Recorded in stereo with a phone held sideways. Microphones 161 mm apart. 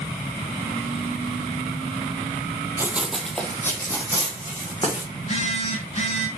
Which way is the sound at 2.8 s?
15° right (ahead or behind).